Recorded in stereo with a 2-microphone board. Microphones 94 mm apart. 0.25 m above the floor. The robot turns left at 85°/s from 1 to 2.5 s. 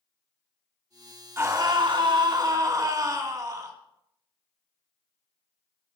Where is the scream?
35° right, 2.5 m; by 3.7 s 130° right, 2.5 m.